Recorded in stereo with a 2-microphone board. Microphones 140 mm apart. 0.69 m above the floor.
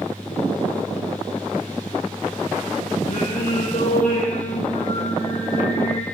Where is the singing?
75° left (ahead or behind), 4.5 m.